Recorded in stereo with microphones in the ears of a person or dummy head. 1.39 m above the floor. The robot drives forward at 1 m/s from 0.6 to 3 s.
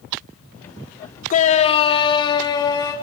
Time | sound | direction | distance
1.3 | a shout | 40° left (ahead or behind) | 1.2 m